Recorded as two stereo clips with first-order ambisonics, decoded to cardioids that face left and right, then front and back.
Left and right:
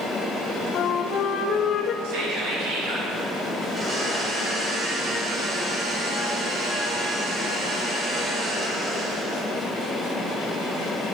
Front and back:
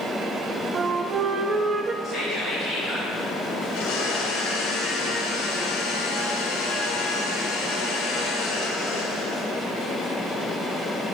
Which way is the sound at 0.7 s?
125° left.